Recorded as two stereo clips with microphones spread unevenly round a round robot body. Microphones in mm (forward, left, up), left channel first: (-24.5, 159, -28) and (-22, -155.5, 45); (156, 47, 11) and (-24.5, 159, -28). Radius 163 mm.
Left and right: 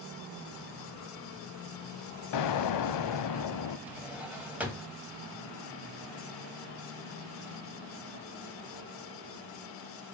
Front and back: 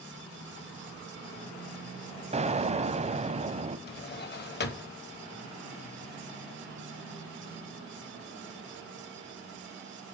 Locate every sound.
2.3 s an explosion: 90° left, 0.8 m
3.9 s a drawer: 5° left, 1.1 m